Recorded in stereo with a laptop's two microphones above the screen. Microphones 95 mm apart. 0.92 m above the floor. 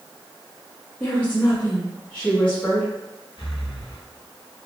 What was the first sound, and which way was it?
A woman speaking, 15° left (ahead or behind).